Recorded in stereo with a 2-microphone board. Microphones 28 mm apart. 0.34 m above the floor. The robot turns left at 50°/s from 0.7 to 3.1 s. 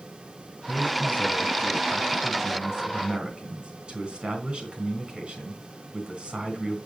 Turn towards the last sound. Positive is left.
turn(degrees=-50)